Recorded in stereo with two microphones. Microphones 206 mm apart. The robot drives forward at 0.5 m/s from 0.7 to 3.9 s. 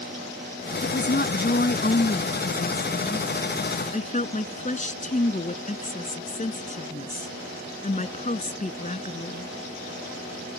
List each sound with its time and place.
0.8 s a woman speaking: 60° left (ahead or behind); by 9.5 s 40° left (ahead or behind)